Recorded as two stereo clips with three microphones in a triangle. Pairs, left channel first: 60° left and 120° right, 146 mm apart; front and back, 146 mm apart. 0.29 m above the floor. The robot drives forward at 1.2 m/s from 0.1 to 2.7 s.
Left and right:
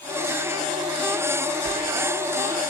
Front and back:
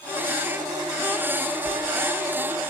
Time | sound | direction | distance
1.6 | a sliding door | 130° left | 2.5 m